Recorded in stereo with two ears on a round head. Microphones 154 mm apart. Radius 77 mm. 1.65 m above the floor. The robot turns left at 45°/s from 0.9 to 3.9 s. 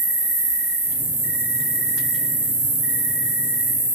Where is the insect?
40° right, 1.2 m; by 4.0 s 175° right, 1.2 m.